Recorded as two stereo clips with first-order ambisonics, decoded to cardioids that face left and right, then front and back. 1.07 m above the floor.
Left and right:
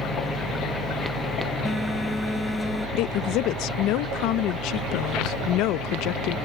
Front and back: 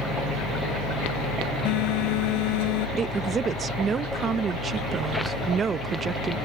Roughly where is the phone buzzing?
Ahead.